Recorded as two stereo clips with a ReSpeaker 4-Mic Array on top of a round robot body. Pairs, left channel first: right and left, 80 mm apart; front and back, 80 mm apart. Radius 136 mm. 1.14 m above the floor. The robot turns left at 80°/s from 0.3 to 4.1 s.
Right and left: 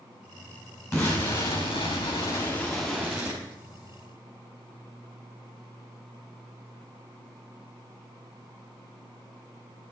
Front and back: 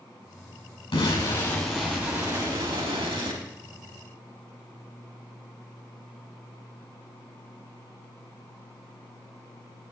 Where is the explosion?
25° right, 5.5 m; by 3.4 s 135° left, 5.5 m.